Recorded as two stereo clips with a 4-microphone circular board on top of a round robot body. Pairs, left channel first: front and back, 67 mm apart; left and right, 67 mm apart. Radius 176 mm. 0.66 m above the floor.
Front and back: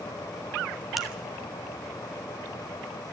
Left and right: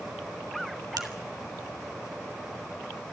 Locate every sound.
1.0 s a finger snap: 90° right, 2.5 m